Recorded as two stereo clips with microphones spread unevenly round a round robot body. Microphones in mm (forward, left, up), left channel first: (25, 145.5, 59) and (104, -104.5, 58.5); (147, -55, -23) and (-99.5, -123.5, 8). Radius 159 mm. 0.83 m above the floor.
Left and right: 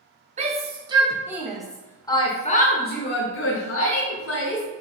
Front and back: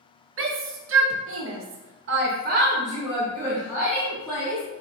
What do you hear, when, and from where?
0.4 s a shout: 135° right, 1.6 m; by 4.6 s 100° left, 1.9 m